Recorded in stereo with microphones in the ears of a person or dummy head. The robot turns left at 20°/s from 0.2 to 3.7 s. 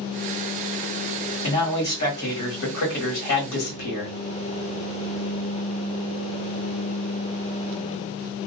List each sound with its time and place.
1.4 s a man speaking: 135° left, 1.3 m; by 4.2 s 90° left, 1.3 m